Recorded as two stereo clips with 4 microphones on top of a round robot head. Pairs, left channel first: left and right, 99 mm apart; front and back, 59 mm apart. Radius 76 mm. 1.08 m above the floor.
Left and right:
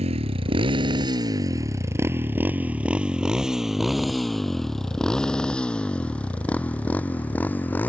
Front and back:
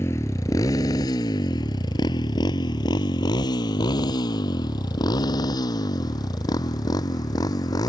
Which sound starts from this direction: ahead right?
A motorcycle, at 0.0 s.